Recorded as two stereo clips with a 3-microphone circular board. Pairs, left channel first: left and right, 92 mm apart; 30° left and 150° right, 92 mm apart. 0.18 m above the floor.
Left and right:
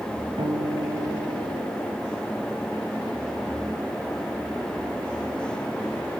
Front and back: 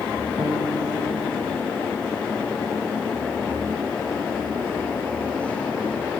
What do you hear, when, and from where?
0.4 s a guitar: 85° right, 6 m